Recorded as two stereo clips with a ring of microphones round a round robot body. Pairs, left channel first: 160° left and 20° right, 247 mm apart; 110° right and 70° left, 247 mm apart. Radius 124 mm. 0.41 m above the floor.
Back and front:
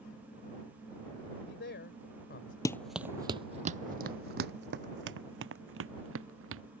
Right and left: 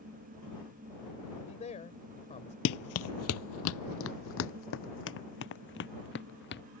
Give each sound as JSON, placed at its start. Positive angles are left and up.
{"t": 1.3, "sound": "a man speaking", "azimuth_deg": -170}
{"t": 2.6, "sound": "running footsteps", "azimuth_deg": -130}